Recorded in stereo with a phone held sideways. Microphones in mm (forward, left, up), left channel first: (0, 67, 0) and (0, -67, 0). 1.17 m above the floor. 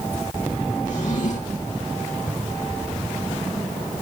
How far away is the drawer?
About 6.5 m.